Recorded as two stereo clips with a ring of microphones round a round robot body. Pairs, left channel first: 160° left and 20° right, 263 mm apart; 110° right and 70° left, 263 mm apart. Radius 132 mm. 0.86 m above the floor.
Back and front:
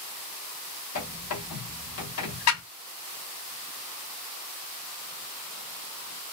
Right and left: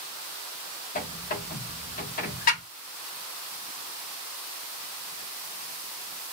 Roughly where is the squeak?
Behind.